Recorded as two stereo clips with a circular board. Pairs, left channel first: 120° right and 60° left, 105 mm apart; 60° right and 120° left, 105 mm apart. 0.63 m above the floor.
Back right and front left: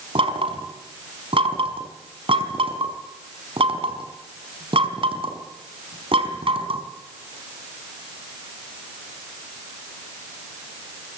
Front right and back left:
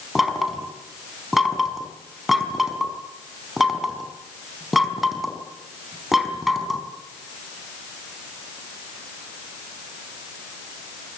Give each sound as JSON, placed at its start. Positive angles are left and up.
{"t": 0.1, "sound": "knocking", "azimuth_deg": 30, "distance_m": 4.5}